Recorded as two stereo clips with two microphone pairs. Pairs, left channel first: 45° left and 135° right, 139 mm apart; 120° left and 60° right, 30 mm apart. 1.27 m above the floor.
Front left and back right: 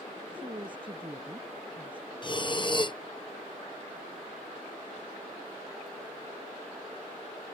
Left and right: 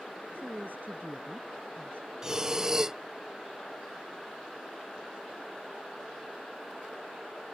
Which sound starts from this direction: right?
A woman speaking, at 0.3 s.